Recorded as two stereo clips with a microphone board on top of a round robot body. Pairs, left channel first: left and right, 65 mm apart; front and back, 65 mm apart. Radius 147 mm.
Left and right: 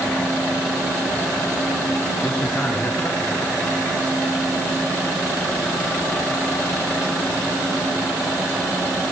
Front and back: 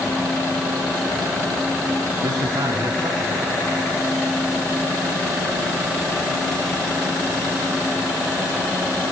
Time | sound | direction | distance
2.2 | a man speaking | 170° left | 6.5 m